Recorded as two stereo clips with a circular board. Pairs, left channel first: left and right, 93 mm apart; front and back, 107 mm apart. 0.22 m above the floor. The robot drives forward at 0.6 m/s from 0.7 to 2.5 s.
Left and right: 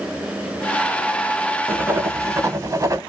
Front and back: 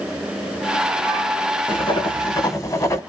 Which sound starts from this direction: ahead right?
Writing, at 1.7 s.